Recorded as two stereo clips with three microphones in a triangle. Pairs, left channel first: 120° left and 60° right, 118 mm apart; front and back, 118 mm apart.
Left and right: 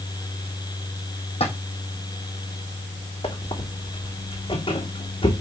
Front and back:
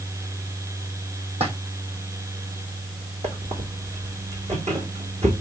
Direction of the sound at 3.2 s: 160° left.